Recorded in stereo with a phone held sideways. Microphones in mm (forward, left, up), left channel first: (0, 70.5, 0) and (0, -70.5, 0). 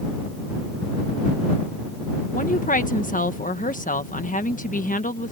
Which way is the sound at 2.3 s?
70° left (ahead or behind).